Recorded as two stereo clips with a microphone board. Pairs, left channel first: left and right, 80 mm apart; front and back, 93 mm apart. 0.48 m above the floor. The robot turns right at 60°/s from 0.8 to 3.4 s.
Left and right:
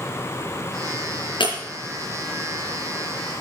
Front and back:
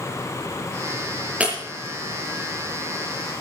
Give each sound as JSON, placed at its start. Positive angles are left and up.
{"t": 1.4, "sound": "breaking glass", "azimuth_deg": 105, "distance_m": 5.0}